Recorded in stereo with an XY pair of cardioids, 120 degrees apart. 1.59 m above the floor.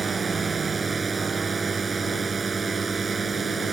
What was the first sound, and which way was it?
A drone, 25° right.